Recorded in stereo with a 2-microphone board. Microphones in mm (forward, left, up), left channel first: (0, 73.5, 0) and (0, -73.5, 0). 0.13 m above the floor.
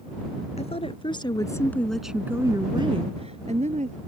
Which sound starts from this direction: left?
A woman speaking, at 0.6 s.